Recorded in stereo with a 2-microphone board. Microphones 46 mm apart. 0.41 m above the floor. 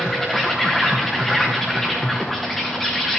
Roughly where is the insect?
Centre.